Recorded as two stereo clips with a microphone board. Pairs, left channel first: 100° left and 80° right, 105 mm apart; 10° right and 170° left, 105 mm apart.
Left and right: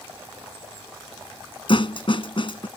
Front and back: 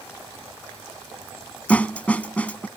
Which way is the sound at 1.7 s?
65° left.